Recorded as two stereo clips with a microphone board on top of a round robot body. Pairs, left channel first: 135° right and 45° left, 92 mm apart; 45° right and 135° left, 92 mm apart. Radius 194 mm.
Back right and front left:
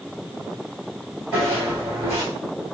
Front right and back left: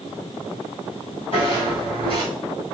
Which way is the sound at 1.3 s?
20° right.